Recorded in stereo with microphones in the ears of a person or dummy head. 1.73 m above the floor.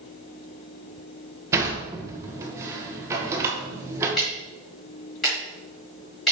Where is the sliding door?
15° right (ahead or behind), 1.4 m.